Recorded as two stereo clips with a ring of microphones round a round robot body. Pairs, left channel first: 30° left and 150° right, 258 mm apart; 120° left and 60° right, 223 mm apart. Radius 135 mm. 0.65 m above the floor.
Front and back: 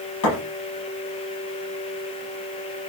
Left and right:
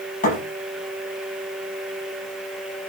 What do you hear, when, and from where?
0.2 s a thud: 65° left, 10 m